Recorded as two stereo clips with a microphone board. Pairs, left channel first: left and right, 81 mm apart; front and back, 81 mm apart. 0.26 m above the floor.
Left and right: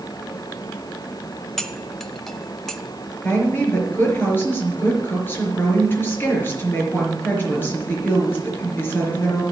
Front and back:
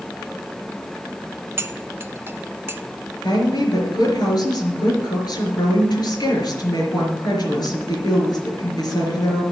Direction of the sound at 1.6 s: 170° left.